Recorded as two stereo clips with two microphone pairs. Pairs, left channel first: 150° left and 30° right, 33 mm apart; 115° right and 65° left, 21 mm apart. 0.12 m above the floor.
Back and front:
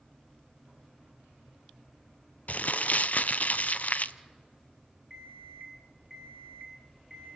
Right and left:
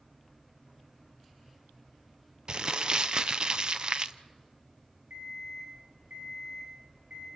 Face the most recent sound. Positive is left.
turn(degrees=55)